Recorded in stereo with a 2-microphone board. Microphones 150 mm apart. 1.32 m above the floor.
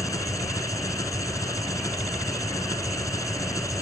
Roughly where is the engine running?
Left.